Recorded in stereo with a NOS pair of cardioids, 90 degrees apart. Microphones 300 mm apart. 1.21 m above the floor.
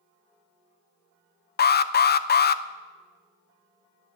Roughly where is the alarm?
Ahead left.